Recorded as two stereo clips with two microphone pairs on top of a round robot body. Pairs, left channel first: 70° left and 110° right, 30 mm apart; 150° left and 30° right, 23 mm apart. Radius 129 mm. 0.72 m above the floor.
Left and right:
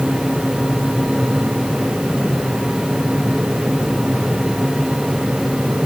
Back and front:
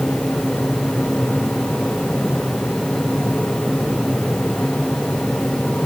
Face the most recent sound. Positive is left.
No sound to turn to.